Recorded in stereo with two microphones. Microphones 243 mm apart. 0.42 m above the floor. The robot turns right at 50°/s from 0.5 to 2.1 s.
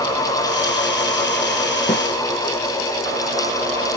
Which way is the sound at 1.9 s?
35° left (ahead or behind).